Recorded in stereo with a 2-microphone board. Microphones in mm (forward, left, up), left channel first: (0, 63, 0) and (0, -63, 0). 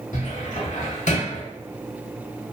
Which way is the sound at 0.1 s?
70° left (ahead or behind).